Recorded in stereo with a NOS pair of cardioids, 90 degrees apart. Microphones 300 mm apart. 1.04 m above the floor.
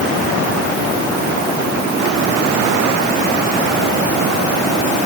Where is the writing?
I don't hear writing.